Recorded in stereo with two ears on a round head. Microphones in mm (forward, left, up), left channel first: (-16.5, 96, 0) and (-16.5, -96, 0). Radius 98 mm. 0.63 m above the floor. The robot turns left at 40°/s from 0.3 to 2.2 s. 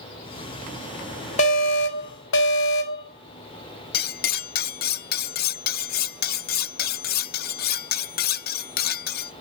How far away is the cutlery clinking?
About 0.6 m.